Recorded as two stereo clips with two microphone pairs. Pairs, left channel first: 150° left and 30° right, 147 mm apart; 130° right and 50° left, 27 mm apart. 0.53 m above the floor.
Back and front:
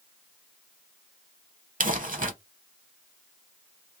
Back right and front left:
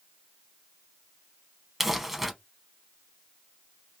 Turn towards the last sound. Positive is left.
turn(degrees=-35)